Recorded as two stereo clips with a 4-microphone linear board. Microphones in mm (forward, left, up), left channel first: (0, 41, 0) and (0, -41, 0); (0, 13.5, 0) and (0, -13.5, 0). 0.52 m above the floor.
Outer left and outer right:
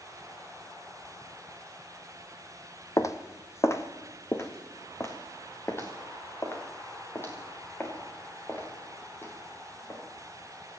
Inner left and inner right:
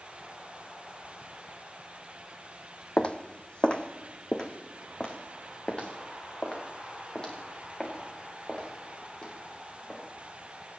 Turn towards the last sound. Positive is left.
turn(degrees=25)  # may be behind; listen again after turning